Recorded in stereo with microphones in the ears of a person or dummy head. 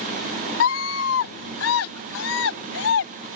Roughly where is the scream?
Left.